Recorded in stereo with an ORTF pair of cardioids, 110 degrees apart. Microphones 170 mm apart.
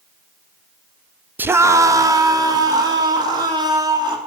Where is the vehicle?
No vehicle in this recording.